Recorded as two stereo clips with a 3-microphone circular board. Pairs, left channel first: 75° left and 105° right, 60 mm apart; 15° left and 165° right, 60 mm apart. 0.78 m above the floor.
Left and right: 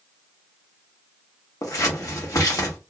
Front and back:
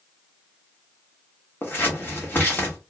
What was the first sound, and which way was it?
Scissors, 70° left.